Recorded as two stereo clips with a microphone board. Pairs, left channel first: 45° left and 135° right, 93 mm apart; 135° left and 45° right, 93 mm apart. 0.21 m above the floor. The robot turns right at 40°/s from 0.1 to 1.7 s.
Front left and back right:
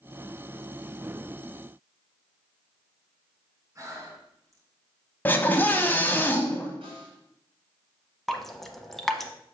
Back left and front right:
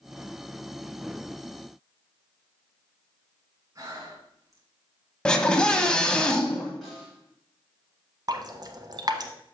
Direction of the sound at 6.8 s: 135° right.